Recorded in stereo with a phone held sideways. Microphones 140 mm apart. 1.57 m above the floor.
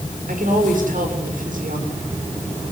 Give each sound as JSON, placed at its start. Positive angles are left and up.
{"t": 0.3, "sound": "a woman speaking", "side_deg": -75, "distance_m": 6.5}